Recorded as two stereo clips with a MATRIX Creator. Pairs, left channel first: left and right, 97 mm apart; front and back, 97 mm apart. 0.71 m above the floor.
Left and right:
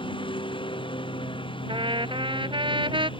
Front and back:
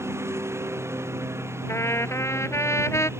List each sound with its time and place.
0.0 s a lawn mower: 115° left
1.7 s a trumpet: 60° right